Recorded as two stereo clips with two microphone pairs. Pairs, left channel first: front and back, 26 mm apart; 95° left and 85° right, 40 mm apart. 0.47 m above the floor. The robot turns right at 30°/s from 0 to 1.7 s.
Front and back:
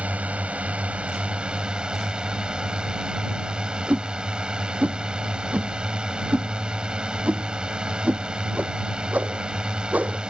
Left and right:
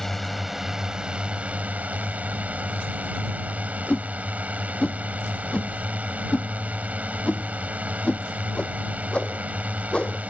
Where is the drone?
175° left; by 10.3 s 135° right.